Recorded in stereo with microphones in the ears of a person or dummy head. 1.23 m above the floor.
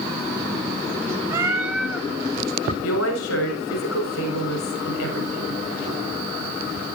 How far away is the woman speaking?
About 6.5 m.